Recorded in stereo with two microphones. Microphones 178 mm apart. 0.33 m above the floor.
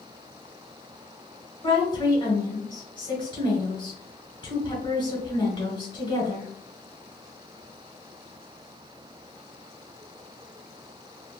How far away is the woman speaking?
About 1.4 m.